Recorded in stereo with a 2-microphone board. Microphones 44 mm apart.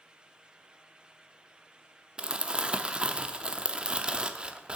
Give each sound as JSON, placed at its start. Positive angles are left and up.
{"t": 2.2, "sound": "crumpling", "side_deg": -25, "distance_m": 0.5}